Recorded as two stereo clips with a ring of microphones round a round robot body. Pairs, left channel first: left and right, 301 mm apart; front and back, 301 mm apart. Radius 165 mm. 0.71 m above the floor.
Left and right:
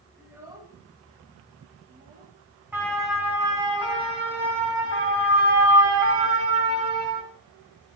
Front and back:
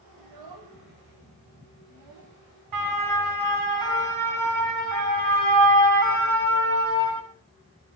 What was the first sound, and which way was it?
A child speaking, 175° right.